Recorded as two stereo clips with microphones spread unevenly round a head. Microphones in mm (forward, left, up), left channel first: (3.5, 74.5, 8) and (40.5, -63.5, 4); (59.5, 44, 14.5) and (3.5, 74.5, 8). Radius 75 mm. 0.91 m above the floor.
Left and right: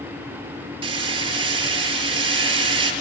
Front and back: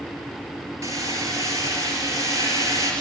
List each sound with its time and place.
0.8 s hammering: 135° right, 4.5 m